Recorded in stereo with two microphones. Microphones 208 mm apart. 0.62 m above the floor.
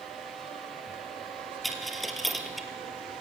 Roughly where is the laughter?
I don't hear laughter.